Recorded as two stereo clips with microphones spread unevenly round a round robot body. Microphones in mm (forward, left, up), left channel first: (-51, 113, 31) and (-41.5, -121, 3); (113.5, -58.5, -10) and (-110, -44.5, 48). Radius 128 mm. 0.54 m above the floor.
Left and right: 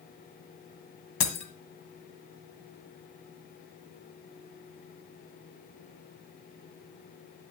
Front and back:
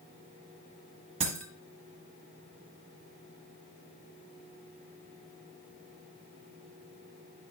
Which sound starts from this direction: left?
Breaking glass, at 1.2 s.